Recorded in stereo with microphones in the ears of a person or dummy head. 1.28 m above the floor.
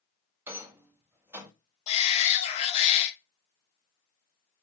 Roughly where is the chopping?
I don't hear chopping.